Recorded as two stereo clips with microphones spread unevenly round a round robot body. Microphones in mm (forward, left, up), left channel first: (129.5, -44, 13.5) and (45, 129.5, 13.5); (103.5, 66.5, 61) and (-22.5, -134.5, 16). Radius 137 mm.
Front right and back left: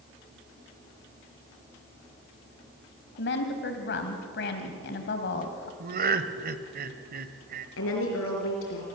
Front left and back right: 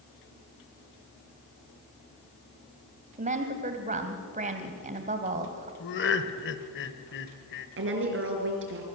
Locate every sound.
3.2 s a woman speaking: 75° right, 2 m
5.8 s laughter: 100° left, 1.5 m
7.8 s a woman speaking: 90° right, 5 m